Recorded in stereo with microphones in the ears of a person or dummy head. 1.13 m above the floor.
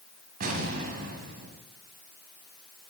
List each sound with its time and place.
0.4 s an explosion: 50° right (ahead or behind), 1.7 m